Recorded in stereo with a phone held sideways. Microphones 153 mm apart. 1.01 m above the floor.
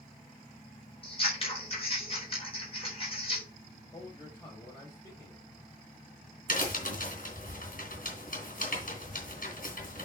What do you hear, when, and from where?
1.0 s scissors: 40° left (ahead or behind), 4 m
3.9 s a man speaking: 30° left (ahead or behind), 4.5 m
6.5 s a crack: 65° left (ahead or behind), 3 m